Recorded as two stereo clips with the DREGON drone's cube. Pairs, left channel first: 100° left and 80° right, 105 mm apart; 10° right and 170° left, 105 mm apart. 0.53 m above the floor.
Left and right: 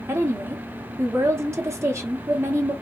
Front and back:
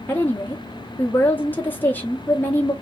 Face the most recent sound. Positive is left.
turn(degrees=-60)